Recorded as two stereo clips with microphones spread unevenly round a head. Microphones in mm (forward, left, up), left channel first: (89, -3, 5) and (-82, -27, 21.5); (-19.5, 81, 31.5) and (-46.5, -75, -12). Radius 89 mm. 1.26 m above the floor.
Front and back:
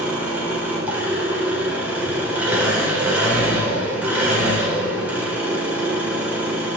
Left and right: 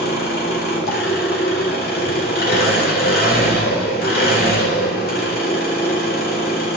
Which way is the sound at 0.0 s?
105° left.